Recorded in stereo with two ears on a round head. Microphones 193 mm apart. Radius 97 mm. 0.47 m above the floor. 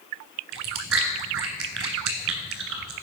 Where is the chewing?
65° right (ahead or behind), 1.7 m.